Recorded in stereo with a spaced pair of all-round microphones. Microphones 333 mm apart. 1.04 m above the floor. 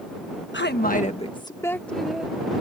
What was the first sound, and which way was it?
A woman speaking, 35° left (ahead or behind).